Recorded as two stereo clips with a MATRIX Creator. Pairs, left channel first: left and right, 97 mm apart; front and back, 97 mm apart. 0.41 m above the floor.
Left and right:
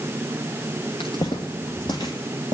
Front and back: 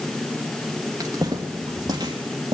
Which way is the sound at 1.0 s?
125° left.